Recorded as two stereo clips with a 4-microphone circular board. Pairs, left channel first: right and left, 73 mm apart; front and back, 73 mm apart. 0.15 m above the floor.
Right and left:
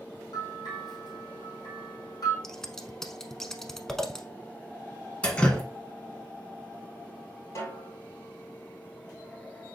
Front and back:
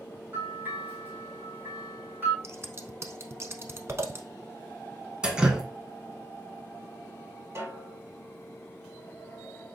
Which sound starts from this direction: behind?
Scissors, at 2.4 s.